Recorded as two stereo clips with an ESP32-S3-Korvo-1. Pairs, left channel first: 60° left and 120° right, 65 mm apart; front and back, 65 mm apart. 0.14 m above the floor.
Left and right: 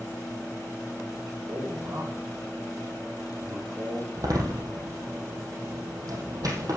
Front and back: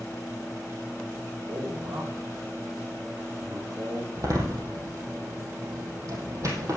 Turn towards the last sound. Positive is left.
turn(degrees=-145)